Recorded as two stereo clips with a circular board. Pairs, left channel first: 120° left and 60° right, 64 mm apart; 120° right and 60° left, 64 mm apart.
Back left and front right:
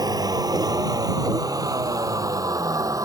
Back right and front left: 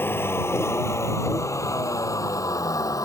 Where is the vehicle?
65° right; by 3.0 s 90° right.